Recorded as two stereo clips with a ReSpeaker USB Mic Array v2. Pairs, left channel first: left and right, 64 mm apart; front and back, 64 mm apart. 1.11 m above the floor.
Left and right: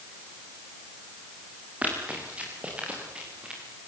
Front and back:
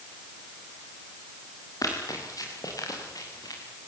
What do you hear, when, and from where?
1.8 s running footsteps: 25° right, 8.5 m; by 3.6 s 15° right, 8 m